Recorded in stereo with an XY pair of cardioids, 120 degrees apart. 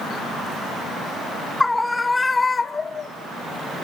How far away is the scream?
About 1.6 m.